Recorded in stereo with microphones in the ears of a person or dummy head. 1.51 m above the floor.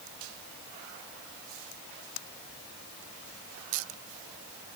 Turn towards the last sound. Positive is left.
No sound to turn to.